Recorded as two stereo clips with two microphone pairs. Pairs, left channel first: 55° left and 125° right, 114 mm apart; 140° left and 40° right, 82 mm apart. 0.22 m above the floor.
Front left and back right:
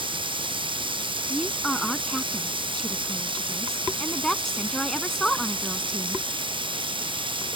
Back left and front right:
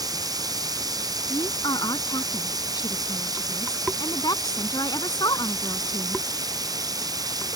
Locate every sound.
0.0 s running water: 80° right
1.3 s a woman speaking: 140° left